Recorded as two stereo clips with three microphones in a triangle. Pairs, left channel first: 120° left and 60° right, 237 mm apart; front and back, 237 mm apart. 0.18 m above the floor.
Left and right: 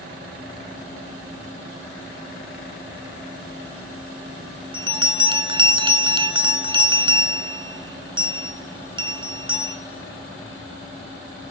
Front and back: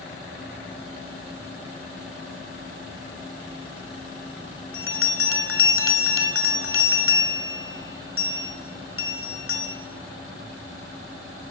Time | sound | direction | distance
4.7 | a bell | 5° left | 0.7 m